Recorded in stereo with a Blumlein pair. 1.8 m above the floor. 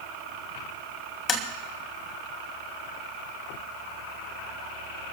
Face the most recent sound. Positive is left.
turn(degrees=20)